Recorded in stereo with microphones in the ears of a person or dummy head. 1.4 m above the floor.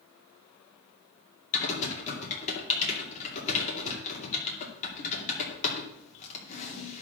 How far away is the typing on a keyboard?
About 2.5 m.